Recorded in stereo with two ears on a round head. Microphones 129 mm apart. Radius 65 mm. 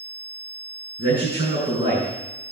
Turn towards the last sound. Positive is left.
turn(degrees=-35)  # may be behind; listen again after turning